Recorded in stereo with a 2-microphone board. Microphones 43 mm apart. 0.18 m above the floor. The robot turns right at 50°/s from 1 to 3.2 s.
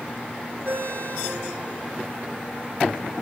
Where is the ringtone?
55° right, 7.5 m; by 2.0 s 5° right, 7.5 m.